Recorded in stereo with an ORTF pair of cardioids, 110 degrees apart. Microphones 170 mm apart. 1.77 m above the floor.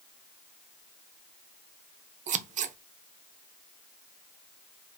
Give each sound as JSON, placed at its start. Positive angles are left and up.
{"t": 2.3, "sound": "scissors", "azimuth_deg": -45, "distance_m": 0.6}